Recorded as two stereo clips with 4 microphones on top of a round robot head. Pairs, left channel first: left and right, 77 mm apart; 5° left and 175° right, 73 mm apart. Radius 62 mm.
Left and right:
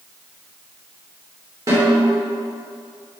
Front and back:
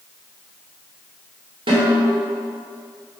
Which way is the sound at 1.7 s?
150° right.